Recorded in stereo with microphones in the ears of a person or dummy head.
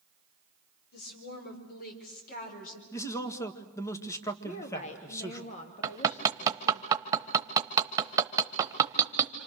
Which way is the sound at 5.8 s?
20° right (ahead or behind).